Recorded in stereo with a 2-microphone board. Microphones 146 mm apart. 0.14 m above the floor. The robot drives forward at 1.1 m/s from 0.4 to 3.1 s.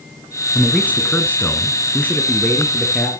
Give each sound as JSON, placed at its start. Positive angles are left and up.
{"t": 0.6, "sound": "a man speaking", "side_deg": 10, "distance_m": 1.4}